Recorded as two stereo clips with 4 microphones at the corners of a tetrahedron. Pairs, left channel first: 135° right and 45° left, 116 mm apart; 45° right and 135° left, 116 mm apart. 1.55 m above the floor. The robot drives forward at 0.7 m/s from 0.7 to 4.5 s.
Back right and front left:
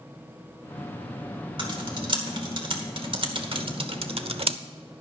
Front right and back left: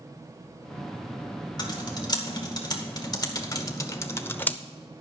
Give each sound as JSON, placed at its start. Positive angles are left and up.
{"t": 1.6, "sound": "typing on a keyboard", "azimuth_deg": 5, "distance_m": 2.5}